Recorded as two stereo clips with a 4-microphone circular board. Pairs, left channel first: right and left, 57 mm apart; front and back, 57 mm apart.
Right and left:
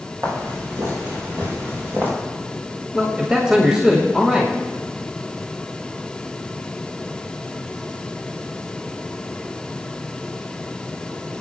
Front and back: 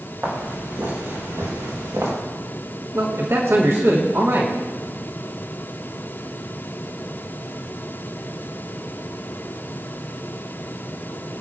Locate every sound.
0.2 s footsteps: 125° left, 6 m; by 2.1 s 145° left, 5.5 m
2.9 s a man speaking: 165° left, 1.7 m